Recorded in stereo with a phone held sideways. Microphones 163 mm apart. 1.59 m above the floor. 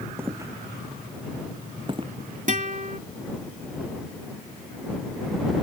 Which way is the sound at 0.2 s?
15° right (ahead or behind).